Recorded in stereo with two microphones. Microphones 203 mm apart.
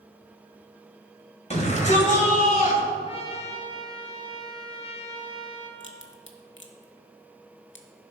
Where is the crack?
70° left (ahead or behind), 1.0 m.